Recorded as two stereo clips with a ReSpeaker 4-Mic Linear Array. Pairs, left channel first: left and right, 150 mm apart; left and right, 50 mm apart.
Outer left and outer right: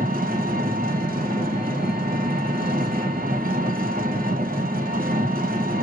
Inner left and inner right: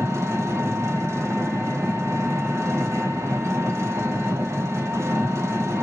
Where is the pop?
I don't hear a pop.